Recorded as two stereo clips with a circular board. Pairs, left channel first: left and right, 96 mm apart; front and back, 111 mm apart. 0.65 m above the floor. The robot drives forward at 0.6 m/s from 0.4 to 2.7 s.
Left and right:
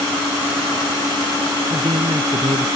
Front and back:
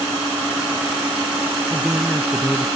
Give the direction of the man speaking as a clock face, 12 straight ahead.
3 o'clock.